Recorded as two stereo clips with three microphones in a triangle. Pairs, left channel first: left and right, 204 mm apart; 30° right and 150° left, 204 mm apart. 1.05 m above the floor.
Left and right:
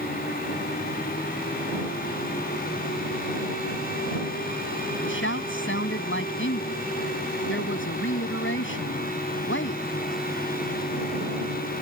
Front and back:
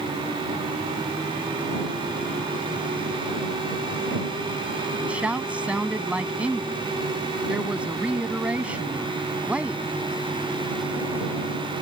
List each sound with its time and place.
5.0 s a woman speaking: 65° left